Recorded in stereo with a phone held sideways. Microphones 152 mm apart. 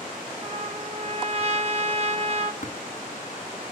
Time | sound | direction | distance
0.4 | a trumpet | 45° right (ahead or behind) | 1.4 m
2.6 | tapping | 55° left (ahead or behind) | 2.5 m